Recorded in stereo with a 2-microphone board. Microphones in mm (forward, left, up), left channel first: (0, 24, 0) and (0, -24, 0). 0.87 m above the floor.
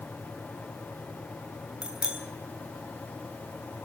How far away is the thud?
No thud in this recording.